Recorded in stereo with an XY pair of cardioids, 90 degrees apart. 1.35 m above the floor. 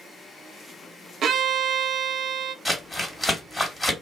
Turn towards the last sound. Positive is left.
turn(degrees=5)